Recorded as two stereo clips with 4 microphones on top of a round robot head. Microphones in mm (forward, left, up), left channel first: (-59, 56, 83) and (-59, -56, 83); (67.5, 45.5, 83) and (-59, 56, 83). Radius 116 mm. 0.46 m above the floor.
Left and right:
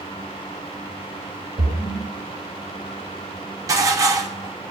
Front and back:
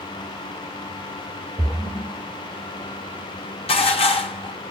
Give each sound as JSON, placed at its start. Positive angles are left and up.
{"t": 1.6, "sound": "a splash", "azimuth_deg": -95, "distance_m": 2.5}
{"t": 3.7, "sound": "dishes clattering", "azimuth_deg": -35, "distance_m": 0.8}